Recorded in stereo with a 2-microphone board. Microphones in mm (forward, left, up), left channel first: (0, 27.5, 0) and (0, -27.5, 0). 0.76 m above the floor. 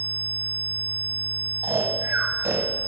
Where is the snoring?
65° right (ahead or behind), 1.2 m.